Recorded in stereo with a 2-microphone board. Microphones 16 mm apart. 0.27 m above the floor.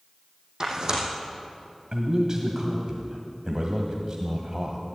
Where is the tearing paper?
45° right (ahead or behind), 3 m.